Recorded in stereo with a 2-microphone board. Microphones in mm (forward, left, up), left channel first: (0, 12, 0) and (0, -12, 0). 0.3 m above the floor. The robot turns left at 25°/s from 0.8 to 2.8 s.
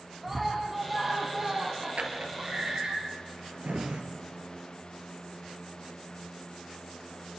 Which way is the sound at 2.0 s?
80° right.